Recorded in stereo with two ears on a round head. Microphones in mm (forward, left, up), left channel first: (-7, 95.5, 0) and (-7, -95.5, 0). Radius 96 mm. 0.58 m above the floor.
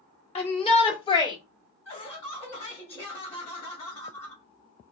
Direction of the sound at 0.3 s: 30° left (ahead or behind).